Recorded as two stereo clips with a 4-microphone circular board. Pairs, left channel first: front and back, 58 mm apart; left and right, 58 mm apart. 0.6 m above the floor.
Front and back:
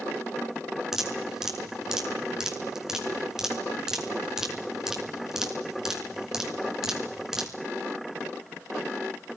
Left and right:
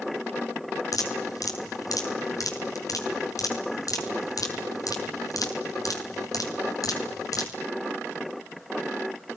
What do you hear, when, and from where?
0.9 s dripping: 95° left, 6 m